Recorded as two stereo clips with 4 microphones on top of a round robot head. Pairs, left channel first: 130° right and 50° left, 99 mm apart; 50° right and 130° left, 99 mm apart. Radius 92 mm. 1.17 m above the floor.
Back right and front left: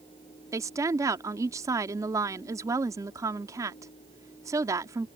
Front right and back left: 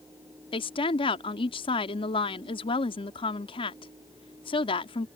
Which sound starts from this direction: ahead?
A woman speaking, at 0.5 s.